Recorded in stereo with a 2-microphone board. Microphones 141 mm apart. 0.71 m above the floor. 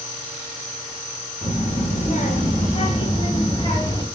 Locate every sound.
1.4 s a child speaking: 65° left (ahead or behind), 3.5 m; by 4.0 s 30° left (ahead or behind), 3 m